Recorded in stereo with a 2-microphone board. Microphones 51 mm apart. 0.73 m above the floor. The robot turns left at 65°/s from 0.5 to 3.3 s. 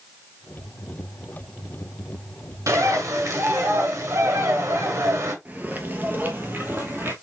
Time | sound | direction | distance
2.7 | a bird | 70° right | 1.3 m
5.5 | footsteps | 35° right (ahead or behind) | 0.8 m